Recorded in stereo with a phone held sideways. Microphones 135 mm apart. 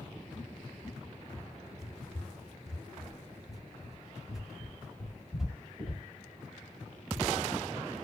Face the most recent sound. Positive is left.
turn(degrees=-5)  # may be behind; listen again after turning